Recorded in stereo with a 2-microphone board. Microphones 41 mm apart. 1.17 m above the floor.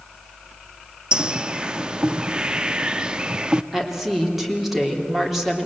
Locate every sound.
1.1 s a bird: 20° right (ahead or behind), 0.6 m
3.7 s a woman speaking: 5° right (ahead or behind), 3 m